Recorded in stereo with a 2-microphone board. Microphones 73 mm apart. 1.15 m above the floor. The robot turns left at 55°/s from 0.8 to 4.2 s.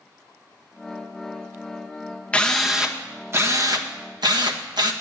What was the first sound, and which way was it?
A drill, 15° left.